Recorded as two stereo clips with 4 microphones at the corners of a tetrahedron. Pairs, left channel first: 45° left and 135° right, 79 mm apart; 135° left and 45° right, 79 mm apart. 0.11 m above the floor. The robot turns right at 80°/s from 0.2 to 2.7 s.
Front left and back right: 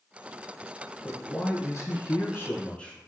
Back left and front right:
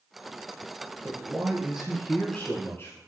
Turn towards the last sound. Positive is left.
turn(degrees=110)